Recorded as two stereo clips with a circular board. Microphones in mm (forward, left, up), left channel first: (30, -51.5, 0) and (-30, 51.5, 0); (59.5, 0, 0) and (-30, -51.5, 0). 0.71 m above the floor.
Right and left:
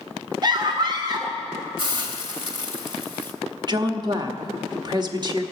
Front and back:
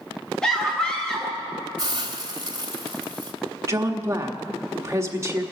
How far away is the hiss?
About 1.5 m.